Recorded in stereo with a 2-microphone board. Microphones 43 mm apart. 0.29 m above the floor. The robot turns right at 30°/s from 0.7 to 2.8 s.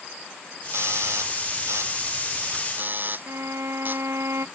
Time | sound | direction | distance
0.7 | a doorbell | 70° right (ahead or behind) | ?
3.3 | a violin | 75° right (ahead or behind) | ?